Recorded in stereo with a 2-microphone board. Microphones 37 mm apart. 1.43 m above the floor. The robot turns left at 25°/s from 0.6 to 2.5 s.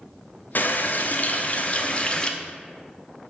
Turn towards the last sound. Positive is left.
turn(degrees=20)